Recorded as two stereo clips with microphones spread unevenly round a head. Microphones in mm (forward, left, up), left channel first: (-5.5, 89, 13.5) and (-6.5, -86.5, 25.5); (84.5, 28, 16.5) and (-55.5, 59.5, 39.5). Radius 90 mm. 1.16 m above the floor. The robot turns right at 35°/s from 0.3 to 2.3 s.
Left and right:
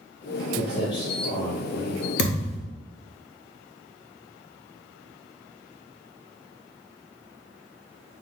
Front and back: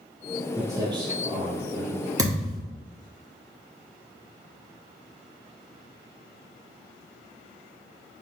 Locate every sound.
0.6 s footsteps: 120° left, 1.3 m; by 2.1 s 155° right, 2 m
2.2 s a thud: 115° left, 0.9 m